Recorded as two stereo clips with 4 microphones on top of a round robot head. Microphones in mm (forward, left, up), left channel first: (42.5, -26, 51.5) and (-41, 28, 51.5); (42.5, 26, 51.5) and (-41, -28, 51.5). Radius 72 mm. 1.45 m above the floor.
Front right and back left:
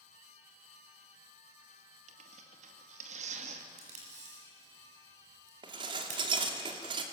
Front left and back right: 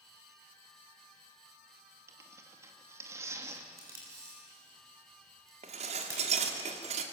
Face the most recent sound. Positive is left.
turn(degrees=-170)